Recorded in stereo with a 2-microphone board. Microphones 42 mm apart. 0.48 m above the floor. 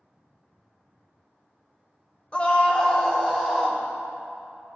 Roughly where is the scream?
Left.